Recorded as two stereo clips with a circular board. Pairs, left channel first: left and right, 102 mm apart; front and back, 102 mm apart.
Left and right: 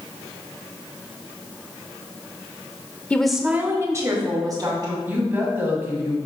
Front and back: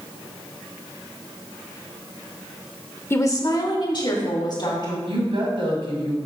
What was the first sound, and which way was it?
A woman speaking, 30° left.